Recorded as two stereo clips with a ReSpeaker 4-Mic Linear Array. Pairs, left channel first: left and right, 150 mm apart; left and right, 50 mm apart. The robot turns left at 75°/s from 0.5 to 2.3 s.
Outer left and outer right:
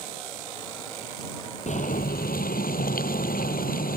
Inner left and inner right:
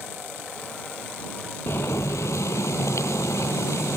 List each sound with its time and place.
1.7 s boiling: 125° left; by 4.0 s 80° left